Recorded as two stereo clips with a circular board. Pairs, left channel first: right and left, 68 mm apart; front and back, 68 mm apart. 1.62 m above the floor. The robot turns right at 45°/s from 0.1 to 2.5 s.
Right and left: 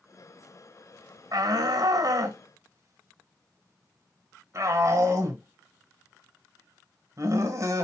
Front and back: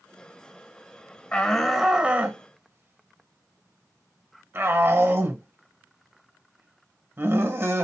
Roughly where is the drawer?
No drawer in this recording.